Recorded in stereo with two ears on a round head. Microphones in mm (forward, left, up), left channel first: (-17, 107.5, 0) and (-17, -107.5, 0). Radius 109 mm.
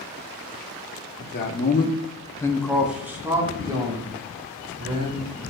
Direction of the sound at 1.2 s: 40° left (ahead or behind).